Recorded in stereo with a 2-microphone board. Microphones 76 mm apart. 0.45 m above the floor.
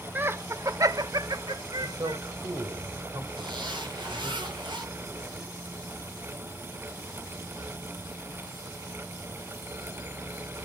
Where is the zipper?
75° right (ahead or behind), 6.5 m.